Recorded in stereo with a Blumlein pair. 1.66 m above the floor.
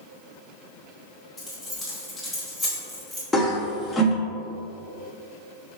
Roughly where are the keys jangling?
Ahead.